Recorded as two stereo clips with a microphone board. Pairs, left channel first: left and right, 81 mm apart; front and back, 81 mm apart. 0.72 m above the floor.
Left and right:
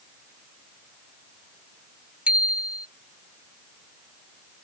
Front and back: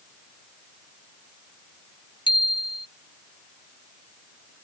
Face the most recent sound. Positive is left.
turn(degrees=-15)